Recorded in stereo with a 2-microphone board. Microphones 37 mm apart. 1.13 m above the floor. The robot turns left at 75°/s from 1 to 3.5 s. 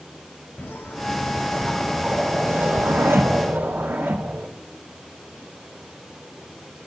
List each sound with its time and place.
0.6 s a whoosh: 65° left, 0.6 m; by 4.5 s 120° right, 0.6 m